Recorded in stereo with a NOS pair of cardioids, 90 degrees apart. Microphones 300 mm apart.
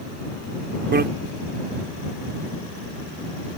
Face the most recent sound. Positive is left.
turn(degrees=-35)